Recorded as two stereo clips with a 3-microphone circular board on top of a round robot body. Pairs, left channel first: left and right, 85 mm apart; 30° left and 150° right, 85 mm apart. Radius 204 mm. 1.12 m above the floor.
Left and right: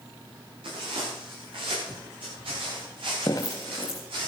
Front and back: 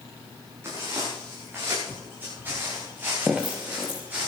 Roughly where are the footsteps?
Right.